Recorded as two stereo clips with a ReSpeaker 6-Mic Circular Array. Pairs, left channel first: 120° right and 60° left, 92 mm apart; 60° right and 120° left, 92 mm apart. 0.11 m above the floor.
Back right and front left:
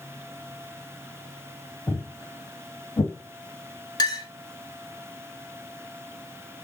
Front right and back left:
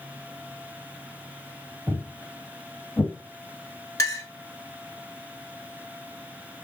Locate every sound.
1.9 s footsteps: straight behind, 0.9 m; by 3.1 s 125° right, 1.1 m
4.0 s a clink: 105° right, 0.9 m